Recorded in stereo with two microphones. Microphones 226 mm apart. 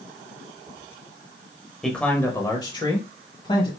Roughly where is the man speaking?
Centre.